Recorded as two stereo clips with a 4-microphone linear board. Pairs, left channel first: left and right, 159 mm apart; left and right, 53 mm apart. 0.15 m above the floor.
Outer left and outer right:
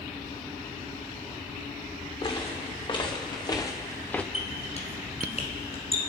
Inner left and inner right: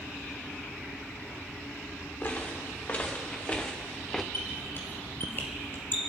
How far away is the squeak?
About 2.5 m.